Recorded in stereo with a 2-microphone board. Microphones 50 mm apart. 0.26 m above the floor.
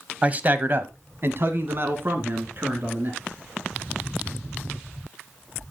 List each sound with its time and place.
0.2 s a man speaking: 25° right (ahead or behind), 1.3 m; by 3.2 s 40° right (ahead or behind), 4 m